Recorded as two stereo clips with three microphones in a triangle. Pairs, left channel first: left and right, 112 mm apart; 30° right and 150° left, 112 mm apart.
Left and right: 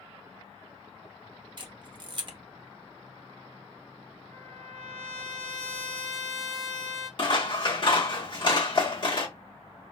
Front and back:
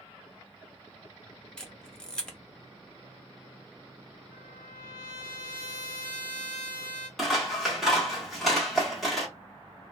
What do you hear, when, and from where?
1.6 s a camera shutter: 115° right, 0.5 m
4.3 s a trumpet: 110° left, 1.0 m
7.2 s scissors: 60° left, 1.0 m